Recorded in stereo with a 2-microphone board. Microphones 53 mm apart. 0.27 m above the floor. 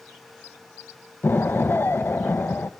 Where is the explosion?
45° left (ahead or behind), 0.6 m.